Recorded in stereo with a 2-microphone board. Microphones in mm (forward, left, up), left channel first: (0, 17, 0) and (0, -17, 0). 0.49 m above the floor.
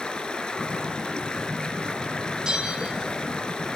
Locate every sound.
0.0 s running water: 30° left (ahead or behind), 2.5 m
2.5 s a bell: 20° right (ahead or behind), 3.5 m